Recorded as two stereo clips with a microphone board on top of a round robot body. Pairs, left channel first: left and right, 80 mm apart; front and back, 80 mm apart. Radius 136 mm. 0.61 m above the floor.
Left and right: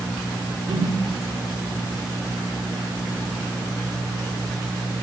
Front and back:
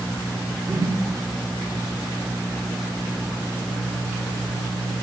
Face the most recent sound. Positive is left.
turn(degrees=-120)